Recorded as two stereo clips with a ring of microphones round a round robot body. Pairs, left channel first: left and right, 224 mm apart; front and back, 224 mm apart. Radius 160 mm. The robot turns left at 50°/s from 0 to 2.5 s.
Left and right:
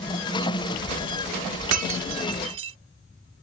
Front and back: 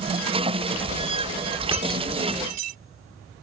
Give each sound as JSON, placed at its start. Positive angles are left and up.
{"t": 1.7, "sound": "breaking glass", "azimuth_deg": -105}